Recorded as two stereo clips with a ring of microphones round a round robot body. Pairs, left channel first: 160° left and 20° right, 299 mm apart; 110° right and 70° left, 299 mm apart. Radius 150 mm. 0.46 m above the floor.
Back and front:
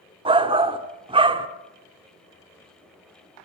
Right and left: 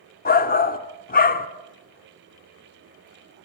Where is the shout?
80° right, 1.0 m.